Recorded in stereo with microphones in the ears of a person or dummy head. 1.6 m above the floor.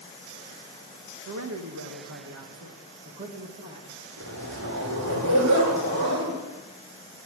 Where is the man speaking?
75° right (ahead or behind), 1.9 m; by 4.0 s 25° right (ahead or behind), 2 m.